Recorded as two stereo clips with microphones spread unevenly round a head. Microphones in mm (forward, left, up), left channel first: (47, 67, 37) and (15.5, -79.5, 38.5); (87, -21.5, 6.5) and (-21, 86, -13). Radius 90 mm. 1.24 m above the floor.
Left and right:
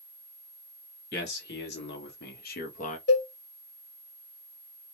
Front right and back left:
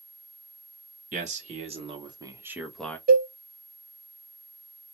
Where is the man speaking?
95° left, 1.5 m; by 3.0 s 35° left, 0.8 m.